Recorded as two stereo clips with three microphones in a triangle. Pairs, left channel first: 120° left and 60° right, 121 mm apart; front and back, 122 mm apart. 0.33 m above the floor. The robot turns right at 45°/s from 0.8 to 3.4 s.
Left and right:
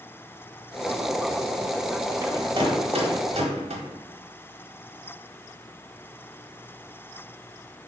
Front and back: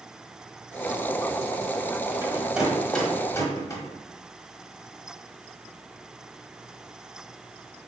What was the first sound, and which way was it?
A rattle, 115° right.